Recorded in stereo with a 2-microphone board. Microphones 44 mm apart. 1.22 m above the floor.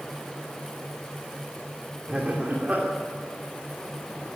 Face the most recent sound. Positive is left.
turn(degrees=-30)  # may be behind; listen again after turning